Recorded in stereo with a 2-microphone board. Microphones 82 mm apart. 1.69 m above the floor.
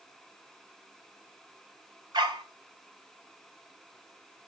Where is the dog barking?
70° right (ahead or behind), 3 m.